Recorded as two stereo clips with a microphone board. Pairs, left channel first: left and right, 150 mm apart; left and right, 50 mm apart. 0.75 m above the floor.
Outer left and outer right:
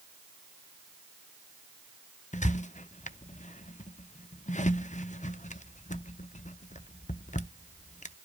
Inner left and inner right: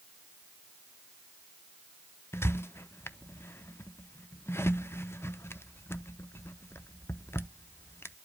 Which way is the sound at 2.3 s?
55° left (ahead or behind).